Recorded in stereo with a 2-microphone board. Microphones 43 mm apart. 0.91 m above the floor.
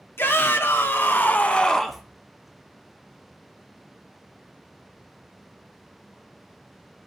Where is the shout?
70° left (ahead or behind), 2.5 m; by 2.0 s 5° right (ahead or behind), 0.9 m.